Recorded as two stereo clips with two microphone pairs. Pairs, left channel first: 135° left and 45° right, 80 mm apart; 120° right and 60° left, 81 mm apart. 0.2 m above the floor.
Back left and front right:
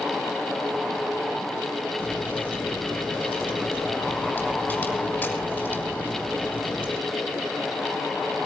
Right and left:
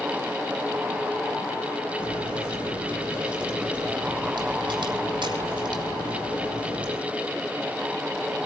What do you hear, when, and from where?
2.0 s a crack: 60° left, 7 m